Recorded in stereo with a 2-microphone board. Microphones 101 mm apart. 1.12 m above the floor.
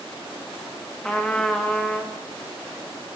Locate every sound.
1.0 s a trumpet: 5° left (ahead or behind), 1.7 m